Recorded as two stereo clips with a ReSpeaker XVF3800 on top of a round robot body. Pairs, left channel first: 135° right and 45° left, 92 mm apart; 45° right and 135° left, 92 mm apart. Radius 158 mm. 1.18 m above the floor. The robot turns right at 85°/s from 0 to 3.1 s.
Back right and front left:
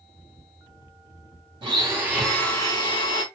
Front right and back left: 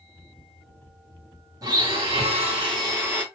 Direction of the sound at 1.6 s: 80° left.